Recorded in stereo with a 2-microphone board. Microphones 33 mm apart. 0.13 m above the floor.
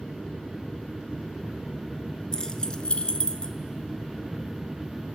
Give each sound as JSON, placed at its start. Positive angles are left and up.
{"t": 2.3, "sound": "keys jangling", "side_deg": 20, "distance_m": 1.2}